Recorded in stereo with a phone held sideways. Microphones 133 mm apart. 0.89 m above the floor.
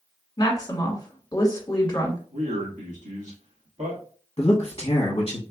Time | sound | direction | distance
0.4 | a woman speaking | 30° left (ahead or behind) | 1.2 m
2.3 | a man speaking | 65° right (ahead or behind) | 1.5 m
4.4 | a man speaking | 40° left (ahead or behind) | 0.9 m